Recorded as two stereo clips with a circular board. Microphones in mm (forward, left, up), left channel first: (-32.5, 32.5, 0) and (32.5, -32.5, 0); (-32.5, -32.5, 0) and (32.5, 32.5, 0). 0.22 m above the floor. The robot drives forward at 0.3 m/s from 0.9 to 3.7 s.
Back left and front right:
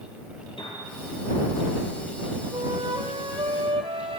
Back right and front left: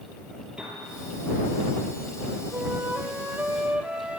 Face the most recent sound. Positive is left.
turn(degrees=-30)